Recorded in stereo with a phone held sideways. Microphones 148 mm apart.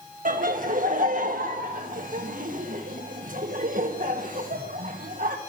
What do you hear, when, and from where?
0.2 s laughter: 60° right (ahead or behind), 1.5 m